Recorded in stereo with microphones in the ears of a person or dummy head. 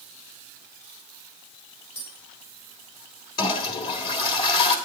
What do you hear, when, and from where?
1.9 s tapping: 40° left (ahead or behind), 7 m
3.4 s a toilet flushing: 35° left (ahead or behind), 1.7 m